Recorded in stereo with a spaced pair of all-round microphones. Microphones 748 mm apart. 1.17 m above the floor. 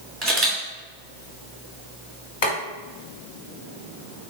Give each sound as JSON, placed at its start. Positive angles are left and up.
{"t": 0.2, "sound": "a camera shutter", "side_deg": -30, "distance_m": 1.5}
{"t": 2.4, "sound": "boiling", "side_deg": 55, "distance_m": 1.6}